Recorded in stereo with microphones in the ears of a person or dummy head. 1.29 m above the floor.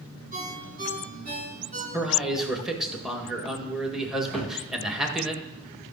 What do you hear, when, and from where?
0.3 s a ringtone: 40° right (ahead or behind), 7 m
1.9 s a man speaking: 5° right (ahead or behind), 1.7 m
4.3 s a cupboard door: 5° left (ahead or behind), 2.5 m